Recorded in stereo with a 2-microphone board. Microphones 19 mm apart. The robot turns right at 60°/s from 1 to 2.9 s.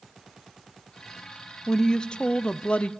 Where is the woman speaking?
20° left, 0.8 m; by 2.9 s 95° left, 0.8 m.